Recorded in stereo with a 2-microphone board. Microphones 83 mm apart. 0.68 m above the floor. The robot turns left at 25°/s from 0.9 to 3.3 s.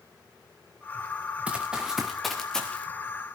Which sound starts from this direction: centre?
Running footsteps, at 1.5 s.